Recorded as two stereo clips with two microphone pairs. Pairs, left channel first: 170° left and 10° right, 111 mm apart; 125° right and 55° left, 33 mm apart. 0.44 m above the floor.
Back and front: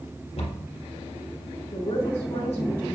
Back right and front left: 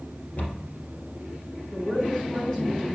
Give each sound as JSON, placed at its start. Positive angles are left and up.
{"t": 0.4, "sound": "a cupboard door", "azimuth_deg": -165, "distance_m": 3.5}
{"t": 1.7, "sound": "a woman speaking", "azimuth_deg": 170, "distance_m": 3.0}